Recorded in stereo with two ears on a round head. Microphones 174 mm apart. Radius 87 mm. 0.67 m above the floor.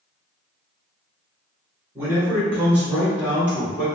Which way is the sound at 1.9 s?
10° right (ahead or behind).